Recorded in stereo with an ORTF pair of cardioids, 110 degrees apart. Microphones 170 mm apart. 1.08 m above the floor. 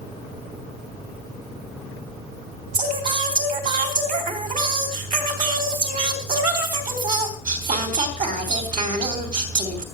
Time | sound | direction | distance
2.7 | singing | 55° right | 3 m